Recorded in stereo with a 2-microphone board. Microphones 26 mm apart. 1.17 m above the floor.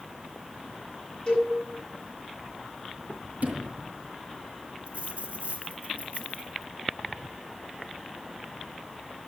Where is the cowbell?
25° left (ahead or behind), 8 m.